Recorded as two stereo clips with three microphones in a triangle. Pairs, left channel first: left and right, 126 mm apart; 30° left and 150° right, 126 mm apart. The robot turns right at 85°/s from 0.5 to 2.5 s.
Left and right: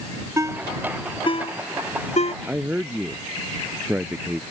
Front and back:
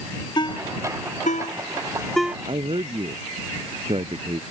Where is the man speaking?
165° right.